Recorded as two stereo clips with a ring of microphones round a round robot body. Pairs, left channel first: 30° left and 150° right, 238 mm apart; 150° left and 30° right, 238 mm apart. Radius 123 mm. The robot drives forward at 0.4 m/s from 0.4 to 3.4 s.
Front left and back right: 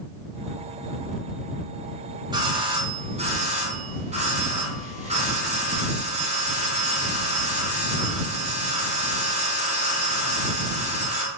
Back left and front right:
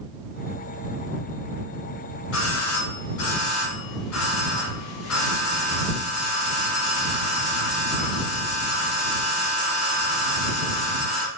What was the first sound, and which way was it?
A doorbell, 140° left.